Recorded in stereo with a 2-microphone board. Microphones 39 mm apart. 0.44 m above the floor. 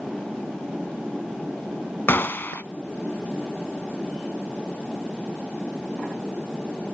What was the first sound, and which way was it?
A gunshot, 60° left (ahead or behind).